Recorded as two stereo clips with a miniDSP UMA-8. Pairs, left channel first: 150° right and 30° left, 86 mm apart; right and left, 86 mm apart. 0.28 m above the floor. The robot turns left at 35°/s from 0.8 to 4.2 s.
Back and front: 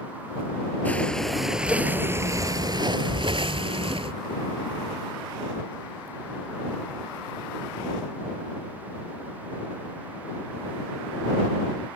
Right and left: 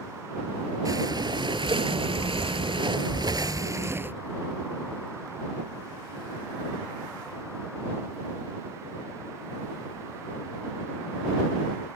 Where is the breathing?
135° left; by 4.2 s 20° left.